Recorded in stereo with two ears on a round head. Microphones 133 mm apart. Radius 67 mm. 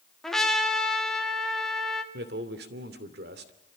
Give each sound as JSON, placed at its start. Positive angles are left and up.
{"t": 0.2, "sound": "a trumpet", "side_deg": 5, "distance_m": 2.0}
{"t": 2.1, "sound": "a man speaking", "side_deg": -80, "distance_m": 2.5}